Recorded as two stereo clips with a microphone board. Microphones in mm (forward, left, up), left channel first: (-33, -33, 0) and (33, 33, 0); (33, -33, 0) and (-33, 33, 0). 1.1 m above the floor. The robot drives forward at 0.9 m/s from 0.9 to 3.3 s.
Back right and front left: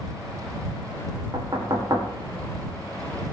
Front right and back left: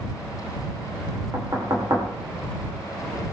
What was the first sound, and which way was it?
Knocking, 80° left.